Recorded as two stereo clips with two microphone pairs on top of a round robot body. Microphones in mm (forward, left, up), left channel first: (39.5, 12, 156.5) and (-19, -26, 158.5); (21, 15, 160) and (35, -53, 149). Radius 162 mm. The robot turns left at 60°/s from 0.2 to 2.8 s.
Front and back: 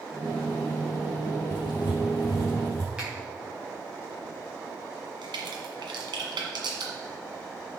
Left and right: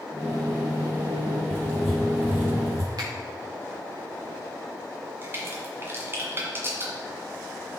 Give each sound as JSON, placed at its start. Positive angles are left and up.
{"t": 1.5, "sound": "writing", "azimuth_deg": 40, "distance_m": 4.0}
{"t": 3.0, "sound": "a finger snap", "azimuth_deg": -70, "distance_m": 3.5}
{"t": 5.2, "sound": "a crack", "azimuth_deg": -135, "distance_m": 1.8}